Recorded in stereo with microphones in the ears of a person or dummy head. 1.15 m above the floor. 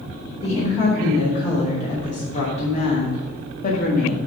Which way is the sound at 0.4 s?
30° left (ahead or behind).